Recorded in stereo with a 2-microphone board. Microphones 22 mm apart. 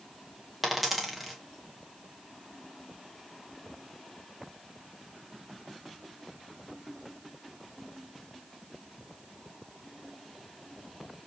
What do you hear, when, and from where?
0.6 s a dropped coin: 10° right (ahead or behind), 1.2 m